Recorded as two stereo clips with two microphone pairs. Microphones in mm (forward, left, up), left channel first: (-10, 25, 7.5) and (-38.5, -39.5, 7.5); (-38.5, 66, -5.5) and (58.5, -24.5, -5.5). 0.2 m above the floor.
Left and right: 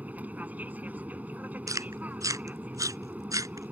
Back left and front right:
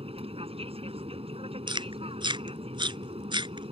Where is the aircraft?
55° right.